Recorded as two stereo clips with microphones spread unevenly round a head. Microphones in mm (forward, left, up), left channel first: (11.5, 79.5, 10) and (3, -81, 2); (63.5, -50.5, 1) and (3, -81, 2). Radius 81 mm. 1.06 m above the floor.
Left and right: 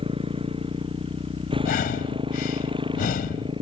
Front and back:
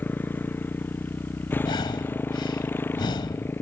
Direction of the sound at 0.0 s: 35° right.